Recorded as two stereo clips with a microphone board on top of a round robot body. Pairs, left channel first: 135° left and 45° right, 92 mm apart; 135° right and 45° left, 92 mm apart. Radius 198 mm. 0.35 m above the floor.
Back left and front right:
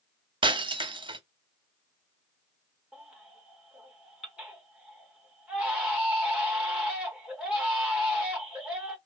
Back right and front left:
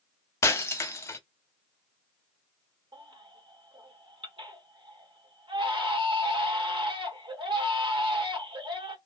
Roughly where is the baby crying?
Ahead left.